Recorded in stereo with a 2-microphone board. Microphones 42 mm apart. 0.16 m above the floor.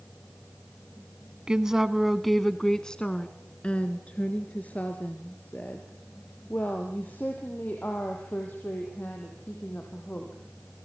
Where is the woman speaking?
20° right (ahead or behind), 1.1 m; by 10.3 s 45° left (ahead or behind), 6 m.